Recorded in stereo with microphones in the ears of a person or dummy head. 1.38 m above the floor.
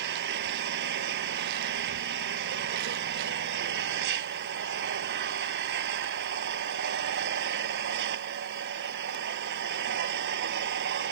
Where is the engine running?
80° right.